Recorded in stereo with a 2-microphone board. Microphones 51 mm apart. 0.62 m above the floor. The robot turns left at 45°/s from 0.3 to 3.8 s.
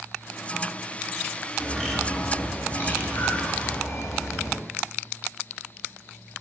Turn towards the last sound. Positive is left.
turn(degrees=90)